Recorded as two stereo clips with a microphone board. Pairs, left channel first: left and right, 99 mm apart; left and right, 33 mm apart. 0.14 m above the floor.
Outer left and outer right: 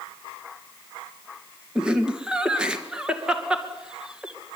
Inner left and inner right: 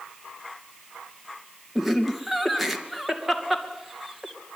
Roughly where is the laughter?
Centre.